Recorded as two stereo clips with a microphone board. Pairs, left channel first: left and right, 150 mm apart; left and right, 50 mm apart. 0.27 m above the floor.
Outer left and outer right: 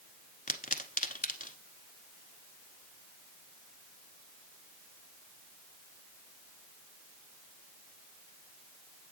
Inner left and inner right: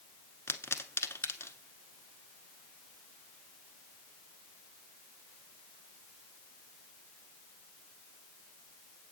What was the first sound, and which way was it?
A pop, 60° left (ahead or behind).